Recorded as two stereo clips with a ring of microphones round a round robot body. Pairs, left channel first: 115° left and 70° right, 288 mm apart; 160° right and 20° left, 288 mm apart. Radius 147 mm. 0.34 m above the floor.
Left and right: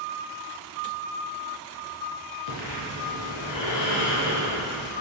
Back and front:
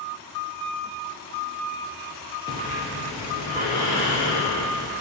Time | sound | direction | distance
2.5 | breathing | 125° left | 3 m